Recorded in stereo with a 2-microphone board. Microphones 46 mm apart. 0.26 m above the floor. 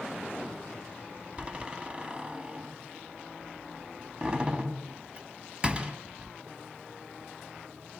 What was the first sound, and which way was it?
A door slam, 25° right (ahead or behind).